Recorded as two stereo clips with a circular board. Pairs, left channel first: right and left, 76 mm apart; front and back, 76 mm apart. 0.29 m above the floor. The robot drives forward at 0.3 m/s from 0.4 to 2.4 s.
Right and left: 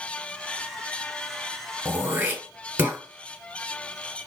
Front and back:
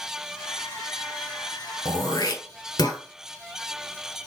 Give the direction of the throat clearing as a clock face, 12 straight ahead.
11 o'clock.